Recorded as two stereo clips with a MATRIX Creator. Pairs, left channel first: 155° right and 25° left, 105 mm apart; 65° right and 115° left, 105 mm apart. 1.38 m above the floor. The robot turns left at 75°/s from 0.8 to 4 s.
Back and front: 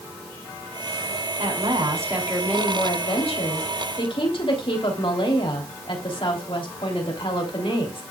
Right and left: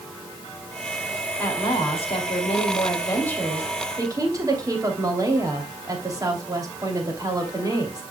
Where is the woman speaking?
5° left, 3 m; by 8.0 s 170° left, 3 m.